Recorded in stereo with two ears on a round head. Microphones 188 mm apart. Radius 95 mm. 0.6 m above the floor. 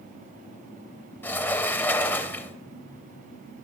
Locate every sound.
1.2 s a sliding door: 10° left (ahead or behind), 0.5 m